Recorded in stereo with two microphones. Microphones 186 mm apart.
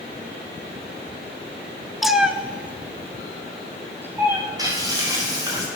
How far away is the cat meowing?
About 0.7 m.